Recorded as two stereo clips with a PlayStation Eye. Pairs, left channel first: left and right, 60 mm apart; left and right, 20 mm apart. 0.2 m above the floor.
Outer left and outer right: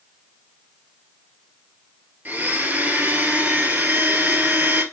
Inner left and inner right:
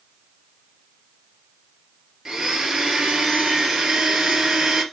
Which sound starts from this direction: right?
A blender, at 2.2 s.